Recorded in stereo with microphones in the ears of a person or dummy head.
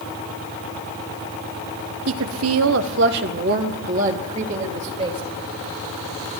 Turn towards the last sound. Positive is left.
turn(degrees=-30)  # may be behind; listen again after turning